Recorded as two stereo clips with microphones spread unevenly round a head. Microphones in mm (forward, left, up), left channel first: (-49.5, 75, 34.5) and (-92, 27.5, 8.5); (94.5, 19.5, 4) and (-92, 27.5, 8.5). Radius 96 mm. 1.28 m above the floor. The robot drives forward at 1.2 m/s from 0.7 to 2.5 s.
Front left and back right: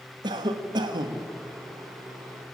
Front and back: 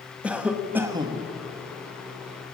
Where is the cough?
100° right, 1.4 m; by 1.3 s 120° right, 1.7 m.